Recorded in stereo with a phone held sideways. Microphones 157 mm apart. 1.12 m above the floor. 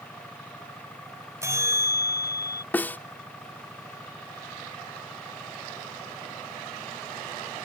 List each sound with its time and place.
0.0 s an engine running: 10° left (ahead or behind)
1.4 s a bell: 20° right (ahead or behind)
2.7 s a snare drum: 10° left (ahead or behind)